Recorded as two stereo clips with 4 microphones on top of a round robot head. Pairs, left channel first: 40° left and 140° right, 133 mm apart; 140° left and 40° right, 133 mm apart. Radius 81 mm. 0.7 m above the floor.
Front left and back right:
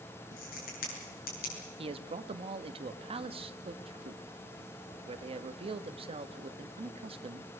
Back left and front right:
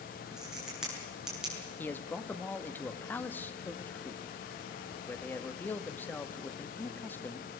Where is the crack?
45° left, 7.5 m.